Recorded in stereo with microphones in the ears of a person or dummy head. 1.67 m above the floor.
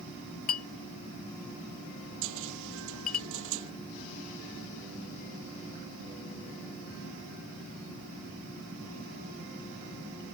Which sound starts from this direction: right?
A cupboard door, at 2.2 s.